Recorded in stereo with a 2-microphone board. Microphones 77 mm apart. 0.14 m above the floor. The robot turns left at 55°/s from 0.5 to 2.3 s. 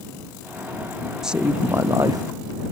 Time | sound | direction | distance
1.2 | a woman speaking | 5° right | ?